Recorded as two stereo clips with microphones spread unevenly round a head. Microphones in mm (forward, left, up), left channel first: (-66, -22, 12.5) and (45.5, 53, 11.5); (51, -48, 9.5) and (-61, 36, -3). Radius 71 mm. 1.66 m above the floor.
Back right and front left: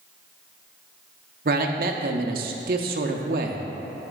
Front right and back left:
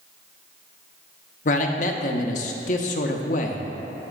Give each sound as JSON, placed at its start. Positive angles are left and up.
{"t": 1.4, "sound": "a man speaking", "azimuth_deg": 0, "distance_m": 0.7}